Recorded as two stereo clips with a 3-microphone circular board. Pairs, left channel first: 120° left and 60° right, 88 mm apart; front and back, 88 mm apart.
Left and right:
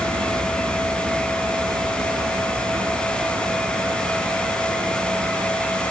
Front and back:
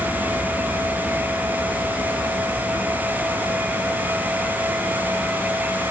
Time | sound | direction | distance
0.0 | a vehicle | 55° right | ?